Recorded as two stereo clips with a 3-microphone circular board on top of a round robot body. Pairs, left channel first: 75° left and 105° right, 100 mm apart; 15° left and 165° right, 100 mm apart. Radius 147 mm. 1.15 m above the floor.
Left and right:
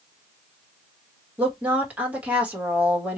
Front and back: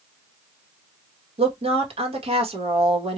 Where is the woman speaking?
175° left, 1.8 m.